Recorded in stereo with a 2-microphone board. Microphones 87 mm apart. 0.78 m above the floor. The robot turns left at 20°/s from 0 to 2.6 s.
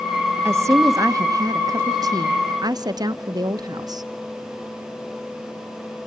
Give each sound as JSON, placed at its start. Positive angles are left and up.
{"t": 0.5, "sound": "a woman speaking", "azimuth_deg": -45, "distance_m": 1.3}